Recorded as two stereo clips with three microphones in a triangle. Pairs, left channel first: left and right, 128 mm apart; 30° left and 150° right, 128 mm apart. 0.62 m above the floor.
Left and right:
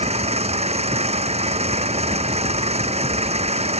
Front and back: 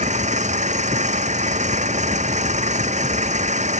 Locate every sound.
0.0 s an engine running: 125° right